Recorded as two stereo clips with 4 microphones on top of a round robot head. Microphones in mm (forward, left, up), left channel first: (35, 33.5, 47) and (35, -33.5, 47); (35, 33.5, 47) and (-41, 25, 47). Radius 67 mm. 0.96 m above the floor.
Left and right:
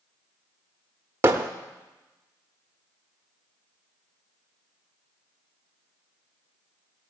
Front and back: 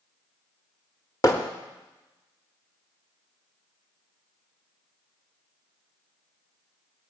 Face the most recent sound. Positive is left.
turn(degrees=-50)